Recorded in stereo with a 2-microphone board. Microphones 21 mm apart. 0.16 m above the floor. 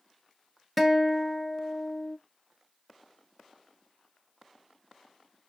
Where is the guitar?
5° right (ahead or behind), 1.1 m.